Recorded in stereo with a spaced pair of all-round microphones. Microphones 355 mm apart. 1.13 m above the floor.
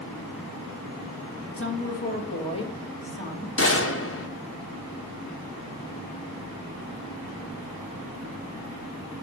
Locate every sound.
1.6 s a woman speaking: 35° left (ahead or behind), 1.0 m; by 3.5 s 10° left (ahead or behind), 3 m
3.6 s a gunshot: 40° left (ahead or behind), 0.9 m